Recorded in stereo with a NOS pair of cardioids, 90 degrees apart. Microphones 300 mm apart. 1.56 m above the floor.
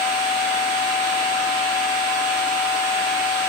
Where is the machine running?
55° right, 1.6 m.